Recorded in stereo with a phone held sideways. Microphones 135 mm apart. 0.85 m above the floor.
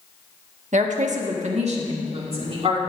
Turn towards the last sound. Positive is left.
turn(degrees=-45)  # may be behind; listen again after turning